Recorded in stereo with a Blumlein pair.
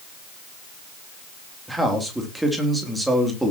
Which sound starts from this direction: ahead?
A man speaking, at 1.7 s.